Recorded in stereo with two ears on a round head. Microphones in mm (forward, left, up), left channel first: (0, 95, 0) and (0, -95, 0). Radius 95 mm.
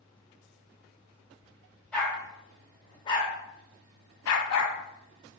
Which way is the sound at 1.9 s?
5° left (ahead or behind).